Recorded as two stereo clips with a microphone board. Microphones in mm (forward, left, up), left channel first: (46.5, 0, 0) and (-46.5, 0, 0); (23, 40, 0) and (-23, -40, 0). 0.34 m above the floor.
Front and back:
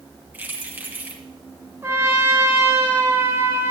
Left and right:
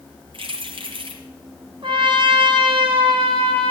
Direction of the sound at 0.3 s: 110° right.